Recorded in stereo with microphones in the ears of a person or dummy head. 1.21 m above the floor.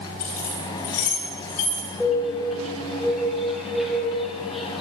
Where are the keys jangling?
50° left (ahead or behind), 3 m; by 1.9 s 65° left (ahead or behind), 4 m.